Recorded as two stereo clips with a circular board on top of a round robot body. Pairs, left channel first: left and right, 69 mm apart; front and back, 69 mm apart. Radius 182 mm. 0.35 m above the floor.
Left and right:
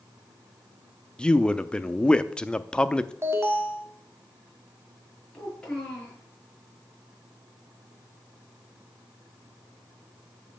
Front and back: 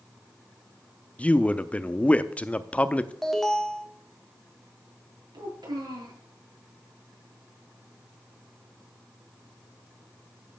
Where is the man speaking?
35° left, 0.9 m.